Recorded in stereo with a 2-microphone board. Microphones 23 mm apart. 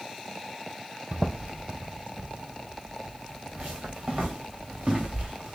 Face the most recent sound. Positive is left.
turn(degrees=-50)  # may be behind; listen again after turning